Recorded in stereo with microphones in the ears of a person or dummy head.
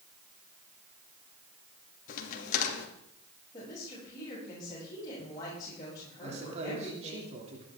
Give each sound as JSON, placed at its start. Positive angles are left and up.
{"t": 2.1, "sound": "a crack", "side_deg": 55, "distance_m": 2.5}
{"t": 3.5, "sound": "a woman speaking", "side_deg": 25, "distance_m": 7.5}
{"t": 6.2, "sound": "a man speaking", "side_deg": -35, "distance_m": 3.0}